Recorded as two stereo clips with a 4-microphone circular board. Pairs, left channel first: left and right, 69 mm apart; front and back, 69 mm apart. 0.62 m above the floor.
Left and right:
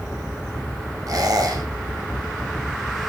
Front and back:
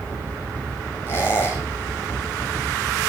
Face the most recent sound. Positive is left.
turn(degrees=-55)